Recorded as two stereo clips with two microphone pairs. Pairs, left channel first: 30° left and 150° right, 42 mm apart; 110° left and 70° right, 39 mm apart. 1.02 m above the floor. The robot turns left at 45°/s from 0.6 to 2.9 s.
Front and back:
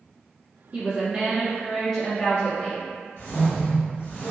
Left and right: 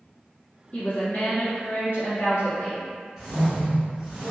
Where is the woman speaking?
155° left, 1.5 m; by 2.9 s 60° left, 1.5 m.